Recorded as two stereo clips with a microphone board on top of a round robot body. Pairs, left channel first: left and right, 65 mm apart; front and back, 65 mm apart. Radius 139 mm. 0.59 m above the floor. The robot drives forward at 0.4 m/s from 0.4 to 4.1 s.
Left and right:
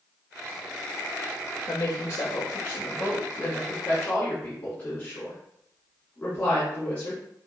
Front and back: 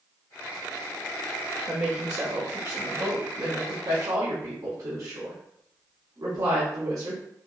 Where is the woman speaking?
120° left, 0.8 m; by 7.2 s 160° left, 1.5 m.